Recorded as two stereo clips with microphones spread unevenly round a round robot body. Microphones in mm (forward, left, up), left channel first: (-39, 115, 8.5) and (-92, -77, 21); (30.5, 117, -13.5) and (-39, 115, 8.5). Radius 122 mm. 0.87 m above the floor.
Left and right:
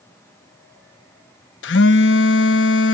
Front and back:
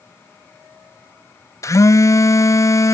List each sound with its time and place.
1.6 s a phone buzzing: 40° left